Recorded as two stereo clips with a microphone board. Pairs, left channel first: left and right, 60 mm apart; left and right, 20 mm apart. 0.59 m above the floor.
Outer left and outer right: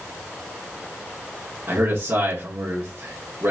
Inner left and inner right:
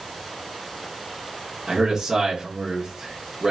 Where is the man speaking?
40° right (ahead or behind), 1.8 m.